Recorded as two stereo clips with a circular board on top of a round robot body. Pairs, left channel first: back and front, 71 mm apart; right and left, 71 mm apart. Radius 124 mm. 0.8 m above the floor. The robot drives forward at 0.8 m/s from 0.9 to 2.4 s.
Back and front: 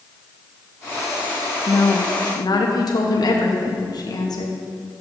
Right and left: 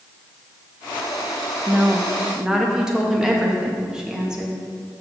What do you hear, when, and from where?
1.7 s a woman speaking: 160° left, 0.8 m; by 4.6 s 170° left, 1.2 m